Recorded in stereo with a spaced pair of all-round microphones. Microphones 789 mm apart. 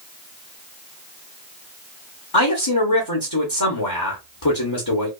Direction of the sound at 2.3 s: 25° left (ahead or behind).